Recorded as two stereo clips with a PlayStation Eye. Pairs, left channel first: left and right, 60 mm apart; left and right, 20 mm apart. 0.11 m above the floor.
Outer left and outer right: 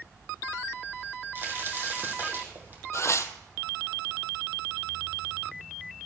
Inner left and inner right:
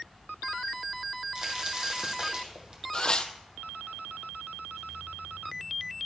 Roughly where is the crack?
Right.